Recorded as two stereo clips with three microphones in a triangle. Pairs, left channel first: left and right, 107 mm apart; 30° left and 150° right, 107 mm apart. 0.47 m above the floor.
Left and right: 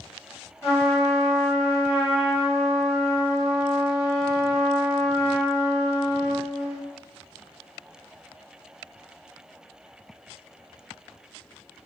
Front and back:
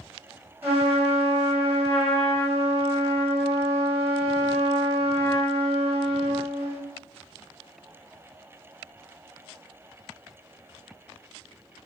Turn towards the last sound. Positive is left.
turn(degrees=145)